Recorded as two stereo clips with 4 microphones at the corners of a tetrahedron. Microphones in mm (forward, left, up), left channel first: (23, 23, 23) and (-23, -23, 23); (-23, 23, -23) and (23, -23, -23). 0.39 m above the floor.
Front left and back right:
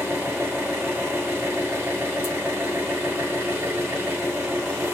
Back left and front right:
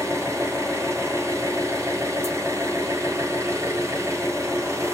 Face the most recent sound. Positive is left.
turn(degrees=-80)